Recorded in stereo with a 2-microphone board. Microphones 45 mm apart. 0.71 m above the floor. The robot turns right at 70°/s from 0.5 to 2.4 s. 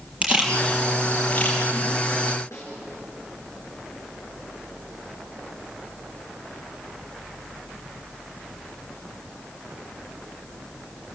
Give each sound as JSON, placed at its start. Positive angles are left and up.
{"t": 0.2, "sound": "a camera shutter", "side_deg": -30, "distance_m": 6.5}
{"t": 2.5, "sound": "a snare drum", "side_deg": 85, "distance_m": 6.0}